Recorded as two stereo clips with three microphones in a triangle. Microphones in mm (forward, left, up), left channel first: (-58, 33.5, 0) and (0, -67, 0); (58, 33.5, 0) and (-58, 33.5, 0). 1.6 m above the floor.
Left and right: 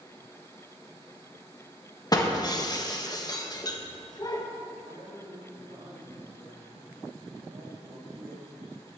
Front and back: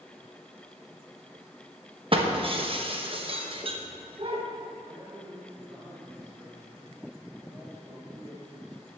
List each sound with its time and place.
2.1 s breaking glass: 165° left, 1.0 m
4.8 s a man speaking: 115° right, 4 m